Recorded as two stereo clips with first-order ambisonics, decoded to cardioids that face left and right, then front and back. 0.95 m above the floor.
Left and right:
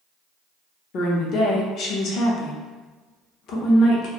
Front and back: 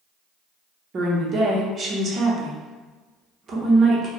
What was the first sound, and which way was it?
A woman speaking, 125° left.